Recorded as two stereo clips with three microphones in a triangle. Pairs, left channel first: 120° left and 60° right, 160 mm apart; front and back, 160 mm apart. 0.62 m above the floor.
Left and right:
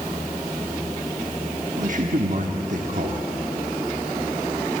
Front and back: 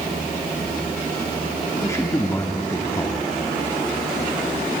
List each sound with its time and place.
1.8 s a man speaking: 70° right, 0.9 m